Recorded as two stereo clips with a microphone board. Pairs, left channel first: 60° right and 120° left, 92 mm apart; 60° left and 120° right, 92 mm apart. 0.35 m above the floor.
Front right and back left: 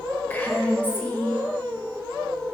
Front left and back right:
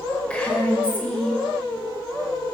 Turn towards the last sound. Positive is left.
turn(degrees=-5)